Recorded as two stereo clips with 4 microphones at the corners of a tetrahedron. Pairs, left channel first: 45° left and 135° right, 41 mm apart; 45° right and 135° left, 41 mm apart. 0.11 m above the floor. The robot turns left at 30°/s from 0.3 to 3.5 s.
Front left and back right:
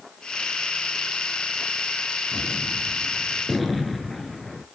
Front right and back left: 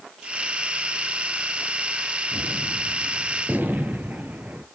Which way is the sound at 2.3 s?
165° left.